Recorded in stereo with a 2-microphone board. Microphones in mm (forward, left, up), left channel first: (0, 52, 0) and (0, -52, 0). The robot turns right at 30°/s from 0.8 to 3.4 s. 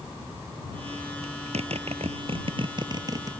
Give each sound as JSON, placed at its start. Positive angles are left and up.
{"t": 1.2, "sound": "a zipper", "side_deg": -85}